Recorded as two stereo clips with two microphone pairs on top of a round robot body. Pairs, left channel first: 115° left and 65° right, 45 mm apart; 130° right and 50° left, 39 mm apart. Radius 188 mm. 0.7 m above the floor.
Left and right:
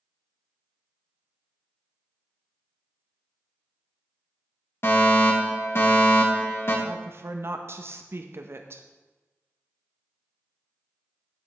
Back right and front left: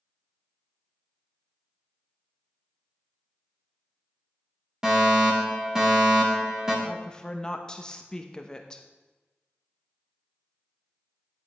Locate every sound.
4.8 s a fire alarm: 130° left, 3.5 m
6.8 s a woman speaking: 65° right, 1.1 m